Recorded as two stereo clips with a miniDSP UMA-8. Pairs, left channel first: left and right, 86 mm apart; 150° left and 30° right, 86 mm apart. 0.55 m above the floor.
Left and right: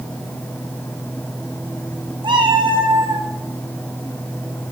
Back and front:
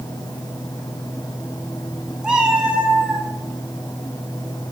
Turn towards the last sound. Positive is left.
turn(degrees=-100)